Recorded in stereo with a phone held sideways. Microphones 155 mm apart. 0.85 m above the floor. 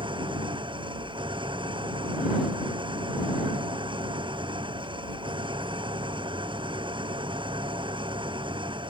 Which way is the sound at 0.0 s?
30° right (ahead or behind).